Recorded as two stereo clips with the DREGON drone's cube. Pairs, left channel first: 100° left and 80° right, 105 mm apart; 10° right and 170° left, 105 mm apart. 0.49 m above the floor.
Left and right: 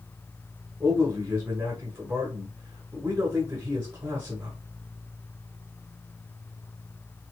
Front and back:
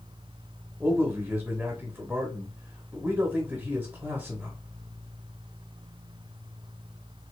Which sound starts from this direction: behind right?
A man speaking, at 0.8 s.